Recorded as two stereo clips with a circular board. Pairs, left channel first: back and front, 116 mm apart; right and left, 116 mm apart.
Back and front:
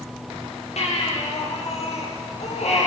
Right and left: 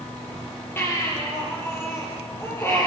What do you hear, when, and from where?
0.8 s a baby crying: 160° right, 7 m